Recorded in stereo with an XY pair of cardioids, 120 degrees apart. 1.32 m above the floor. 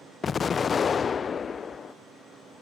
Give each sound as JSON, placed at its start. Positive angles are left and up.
{"t": 0.2, "sound": "an explosion", "azimuth_deg": 35}